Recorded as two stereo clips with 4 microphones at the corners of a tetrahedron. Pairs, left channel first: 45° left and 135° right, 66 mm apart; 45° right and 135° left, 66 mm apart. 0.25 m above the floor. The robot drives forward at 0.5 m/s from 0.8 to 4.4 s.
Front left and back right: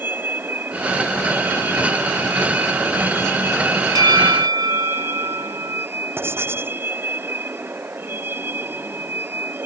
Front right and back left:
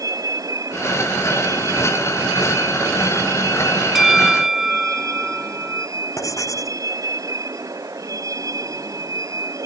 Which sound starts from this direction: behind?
A vehicle, at 0.0 s.